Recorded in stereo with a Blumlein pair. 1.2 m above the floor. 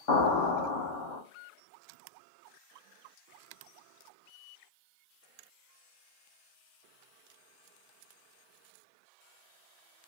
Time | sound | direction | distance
0.1 | an explosion | 50° left | 1.1 m